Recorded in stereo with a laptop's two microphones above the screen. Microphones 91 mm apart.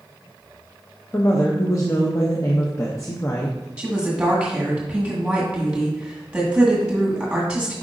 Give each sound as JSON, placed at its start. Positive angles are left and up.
{"t": 1.1, "sound": "a woman speaking", "side_deg": 35, "distance_m": 0.6}
{"t": 3.8, "sound": "a woman speaking", "side_deg": -10, "distance_m": 1.6}